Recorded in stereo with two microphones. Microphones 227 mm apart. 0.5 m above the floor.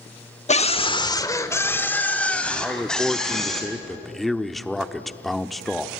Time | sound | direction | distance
0.5 | a scream | 30° left (ahead or behind) | 1.1 m
2.6 | a man speaking | centre (ahead or behind) | 0.8 m